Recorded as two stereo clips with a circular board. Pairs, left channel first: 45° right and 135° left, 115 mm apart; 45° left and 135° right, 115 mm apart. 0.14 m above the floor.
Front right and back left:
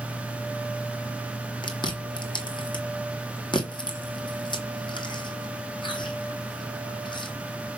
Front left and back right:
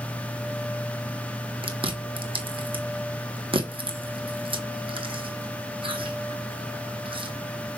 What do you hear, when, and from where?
1.6 s chewing: 95° right, 1.2 m